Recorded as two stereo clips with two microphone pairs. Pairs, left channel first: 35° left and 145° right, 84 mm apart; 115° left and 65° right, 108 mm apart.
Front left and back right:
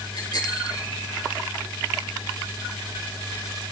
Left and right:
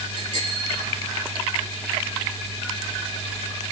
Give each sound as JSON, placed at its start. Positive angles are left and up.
{"t": 0.1, "sound": "a bicycle bell", "azimuth_deg": 70, "distance_m": 9.0}